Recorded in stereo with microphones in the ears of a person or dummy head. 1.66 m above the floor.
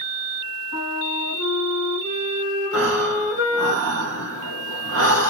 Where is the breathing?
65° right (ahead or behind), 0.9 m.